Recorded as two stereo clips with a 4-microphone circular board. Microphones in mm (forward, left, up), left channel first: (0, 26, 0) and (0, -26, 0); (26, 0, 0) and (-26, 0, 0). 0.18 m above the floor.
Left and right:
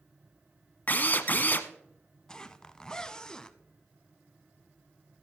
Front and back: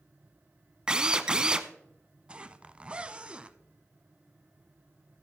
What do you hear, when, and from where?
0.9 s a drill: 115° left, 0.7 m
2.3 s a zipper: 145° left, 0.5 m